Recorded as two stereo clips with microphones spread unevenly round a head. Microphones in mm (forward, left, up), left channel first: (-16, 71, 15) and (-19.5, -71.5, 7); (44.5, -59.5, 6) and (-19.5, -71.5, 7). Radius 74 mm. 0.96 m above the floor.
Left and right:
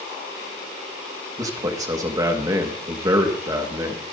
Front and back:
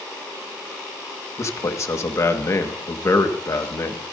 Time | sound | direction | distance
1.4 | a man speaking | 25° right | 1.6 m